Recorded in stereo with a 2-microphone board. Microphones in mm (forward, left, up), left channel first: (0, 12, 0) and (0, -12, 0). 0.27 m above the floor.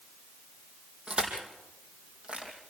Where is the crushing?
40° right (ahead or behind), 4.5 m.